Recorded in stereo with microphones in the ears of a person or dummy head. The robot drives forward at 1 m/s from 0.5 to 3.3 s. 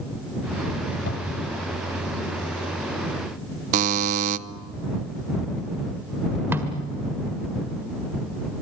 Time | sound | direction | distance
1.1 | a cupboard door | 70° left (ahead or behind) | 3 m
3.7 | a buzzer | 40° right (ahead or behind) | 0.9 m
6.5 | a snare drum | 10° right (ahead or behind) | 1.6 m